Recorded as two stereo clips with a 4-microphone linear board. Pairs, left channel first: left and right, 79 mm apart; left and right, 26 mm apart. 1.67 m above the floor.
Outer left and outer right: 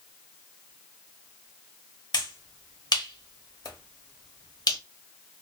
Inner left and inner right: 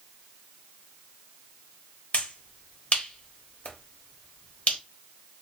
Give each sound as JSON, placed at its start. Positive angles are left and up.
{"t": 2.1, "sound": "a finger snap", "side_deg": 60, "distance_m": 1.2}